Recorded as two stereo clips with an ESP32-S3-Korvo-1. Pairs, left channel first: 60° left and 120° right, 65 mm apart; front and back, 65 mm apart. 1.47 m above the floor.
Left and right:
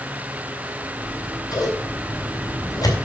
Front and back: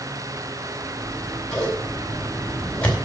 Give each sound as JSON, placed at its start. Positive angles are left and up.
{"t": 1.0, "sound": "scissors", "azimuth_deg": 70, "distance_m": 4.0}